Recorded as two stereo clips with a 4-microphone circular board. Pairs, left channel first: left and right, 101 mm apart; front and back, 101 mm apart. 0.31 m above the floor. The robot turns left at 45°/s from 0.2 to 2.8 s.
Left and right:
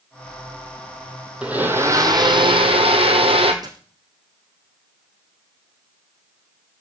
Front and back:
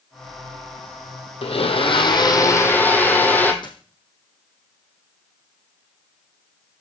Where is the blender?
10° right, 1.8 m; by 3.5 s 70° right, 1.8 m.